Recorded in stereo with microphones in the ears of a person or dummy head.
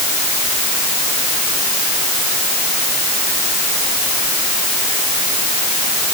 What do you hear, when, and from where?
Only background noise.